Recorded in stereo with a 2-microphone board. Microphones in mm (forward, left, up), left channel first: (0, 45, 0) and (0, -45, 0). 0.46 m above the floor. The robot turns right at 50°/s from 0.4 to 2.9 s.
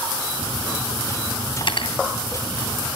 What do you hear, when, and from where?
1.6 s cutlery clinking: 65° left (ahead or behind), 2.5 m; by 1.9 s 75° left (ahead or behind), 2.5 m